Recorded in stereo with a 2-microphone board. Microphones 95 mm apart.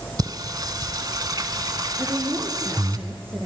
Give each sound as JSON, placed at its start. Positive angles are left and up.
{"t": 0.2, "sound": "singing", "side_deg": -45, "distance_m": 1.0}
{"t": 2.0, "sound": "a woman speaking", "side_deg": -25, "distance_m": 2.5}